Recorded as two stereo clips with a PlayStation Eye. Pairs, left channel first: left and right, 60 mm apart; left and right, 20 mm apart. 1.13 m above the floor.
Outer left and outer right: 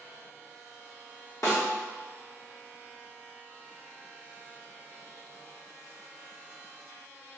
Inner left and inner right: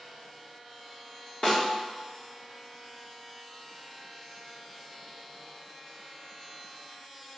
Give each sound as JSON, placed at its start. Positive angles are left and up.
{"t": 1.4, "sound": "a snare drum", "side_deg": 65, "distance_m": 1.3}